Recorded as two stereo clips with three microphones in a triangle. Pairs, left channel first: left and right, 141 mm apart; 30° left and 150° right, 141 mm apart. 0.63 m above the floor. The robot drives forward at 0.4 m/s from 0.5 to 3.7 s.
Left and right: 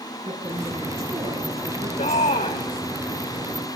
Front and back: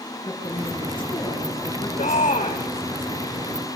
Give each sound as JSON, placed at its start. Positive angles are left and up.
{"t": 0.2, "sound": "a woman speaking", "azimuth_deg": -40, "distance_m": 8.5}
{"t": 2.0, "sound": "a shout", "azimuth_deg": 55, "distance_m": 2.0}